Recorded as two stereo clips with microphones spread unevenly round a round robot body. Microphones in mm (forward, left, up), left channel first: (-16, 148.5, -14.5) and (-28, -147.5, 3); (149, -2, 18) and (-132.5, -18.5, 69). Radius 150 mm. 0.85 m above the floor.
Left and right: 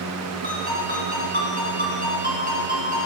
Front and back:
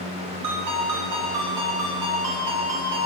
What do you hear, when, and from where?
0.4 s a ringtone: 155° right, 5.5 m